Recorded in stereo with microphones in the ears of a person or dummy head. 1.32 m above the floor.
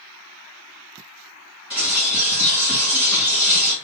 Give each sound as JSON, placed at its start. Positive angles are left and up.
{"t": 1.7, "sound": "a bird", "side_deg": 5, "distance_m": 1.6}